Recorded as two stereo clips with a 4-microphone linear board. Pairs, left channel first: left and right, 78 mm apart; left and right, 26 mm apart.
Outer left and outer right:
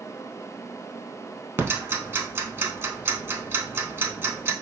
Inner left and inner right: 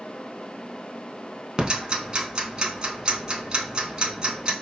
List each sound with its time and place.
1.6 s ticking: 30° right (ahead or behind), 0.6 m